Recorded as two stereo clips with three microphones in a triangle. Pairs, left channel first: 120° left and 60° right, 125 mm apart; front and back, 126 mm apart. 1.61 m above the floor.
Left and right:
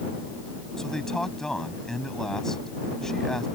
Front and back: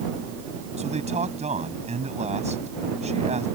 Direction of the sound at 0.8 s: 155° right.